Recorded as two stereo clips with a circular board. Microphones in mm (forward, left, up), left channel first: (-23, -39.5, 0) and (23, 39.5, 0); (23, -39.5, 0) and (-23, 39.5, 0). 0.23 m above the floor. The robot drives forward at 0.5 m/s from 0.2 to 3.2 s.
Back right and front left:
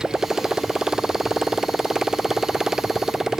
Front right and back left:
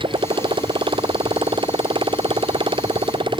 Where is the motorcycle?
145° left.